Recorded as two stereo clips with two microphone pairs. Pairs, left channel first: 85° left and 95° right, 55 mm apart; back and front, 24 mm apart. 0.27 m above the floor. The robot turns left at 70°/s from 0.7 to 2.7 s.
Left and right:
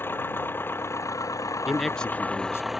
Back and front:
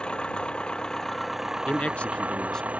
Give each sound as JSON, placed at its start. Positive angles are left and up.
{"t": 0.0, "sound": "an engine running", "azimuth_deg": 135}
{"t": 1.7, "sound": "a man speaking", "azimuth_deg": -175}